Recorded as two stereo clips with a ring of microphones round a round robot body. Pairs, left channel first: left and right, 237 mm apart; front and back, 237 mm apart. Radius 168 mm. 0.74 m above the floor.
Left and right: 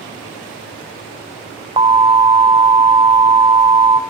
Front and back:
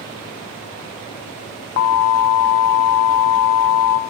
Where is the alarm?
20° right, 0.6 m.